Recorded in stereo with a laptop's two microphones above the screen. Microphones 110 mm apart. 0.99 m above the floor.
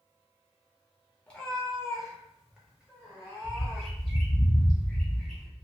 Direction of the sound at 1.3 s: 10° left (ahead or behind).